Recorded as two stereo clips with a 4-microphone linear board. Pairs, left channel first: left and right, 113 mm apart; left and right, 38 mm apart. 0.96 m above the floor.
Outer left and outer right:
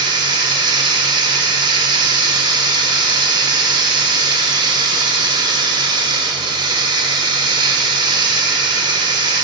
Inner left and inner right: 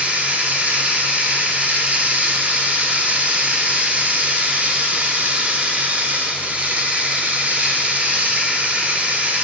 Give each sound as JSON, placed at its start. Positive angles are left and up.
{"t": 0.0, "sound": "running water", "side_deg": -40, "distance_m": 0.7}